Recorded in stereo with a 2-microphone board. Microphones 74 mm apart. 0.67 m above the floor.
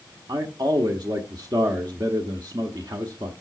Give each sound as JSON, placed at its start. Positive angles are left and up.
{"t": 0.3, "sound": "a man speaking", "side_deg": -65, "distance_m": 1.2}